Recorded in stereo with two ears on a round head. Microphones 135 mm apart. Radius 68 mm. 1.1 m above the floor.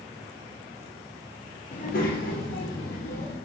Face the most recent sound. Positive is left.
turn(degrees=70)  # may be behind; listen again after turning